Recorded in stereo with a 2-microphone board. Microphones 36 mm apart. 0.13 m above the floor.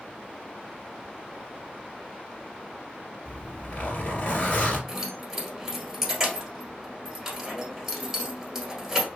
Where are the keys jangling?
10° right (ahead or behind), 1.5 m.